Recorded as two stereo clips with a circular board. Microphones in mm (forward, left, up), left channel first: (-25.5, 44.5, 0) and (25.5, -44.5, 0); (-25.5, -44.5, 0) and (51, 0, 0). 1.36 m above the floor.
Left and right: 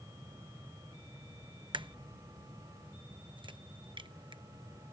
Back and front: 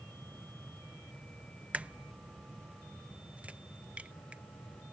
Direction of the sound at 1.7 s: 40° right.